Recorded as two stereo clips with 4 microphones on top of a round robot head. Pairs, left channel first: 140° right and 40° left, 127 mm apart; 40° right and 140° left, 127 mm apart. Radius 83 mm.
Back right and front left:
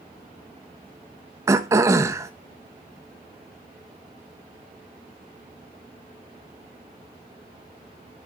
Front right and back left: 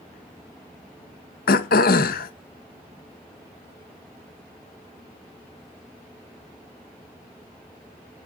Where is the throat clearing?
30° right, 1.0 m.